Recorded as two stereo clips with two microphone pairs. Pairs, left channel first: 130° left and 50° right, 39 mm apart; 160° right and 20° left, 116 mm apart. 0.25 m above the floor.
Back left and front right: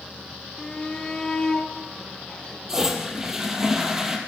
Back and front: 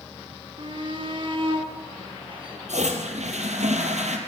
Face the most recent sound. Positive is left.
turn(degrees=30)